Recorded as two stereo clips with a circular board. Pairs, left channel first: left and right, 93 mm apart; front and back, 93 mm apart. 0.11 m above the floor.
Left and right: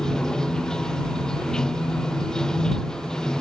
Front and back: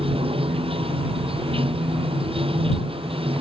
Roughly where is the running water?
Behind.